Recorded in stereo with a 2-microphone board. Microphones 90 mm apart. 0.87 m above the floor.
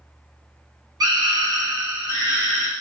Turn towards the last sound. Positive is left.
turn(degrees=-30)  # may be behind; listen again after turning